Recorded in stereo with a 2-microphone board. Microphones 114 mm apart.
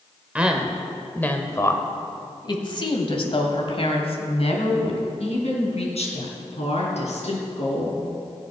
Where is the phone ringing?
No phone ringing in this recording.